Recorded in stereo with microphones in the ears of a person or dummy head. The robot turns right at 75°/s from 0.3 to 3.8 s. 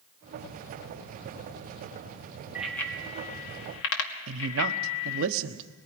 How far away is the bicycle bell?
About 2 m.